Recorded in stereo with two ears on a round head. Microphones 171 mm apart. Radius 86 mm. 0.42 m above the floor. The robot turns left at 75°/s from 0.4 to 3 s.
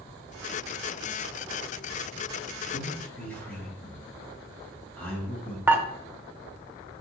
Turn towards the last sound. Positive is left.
turn(degrees=-10)  # may be behind; listen again after turning